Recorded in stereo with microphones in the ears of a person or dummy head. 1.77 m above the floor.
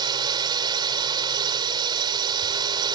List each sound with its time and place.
0.0 s a drone: 25° right (ahead or behind)